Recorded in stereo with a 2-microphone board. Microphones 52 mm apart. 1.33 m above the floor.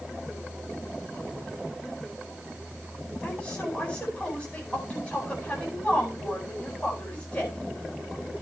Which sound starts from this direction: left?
A woman speaking, at 3.2 s.